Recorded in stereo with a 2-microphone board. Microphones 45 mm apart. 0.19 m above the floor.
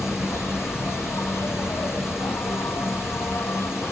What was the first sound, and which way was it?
An insect, 75° left (ahead or behind).